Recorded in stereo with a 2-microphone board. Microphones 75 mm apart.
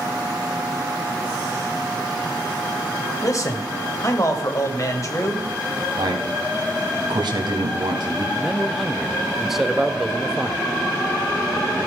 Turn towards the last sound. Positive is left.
turn(degrees=-5)  # may be behind; listen again after turning